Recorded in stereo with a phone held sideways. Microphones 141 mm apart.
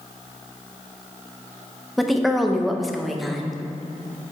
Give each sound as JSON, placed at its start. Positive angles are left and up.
{"t": 2.0, "sound": "a woman speaking", "side_deg": 0, "distance_m": 0.8}